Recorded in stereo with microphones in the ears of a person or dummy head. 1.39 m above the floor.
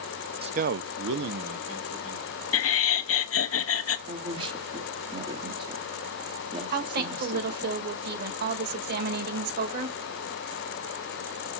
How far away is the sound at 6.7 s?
About 1.9 m.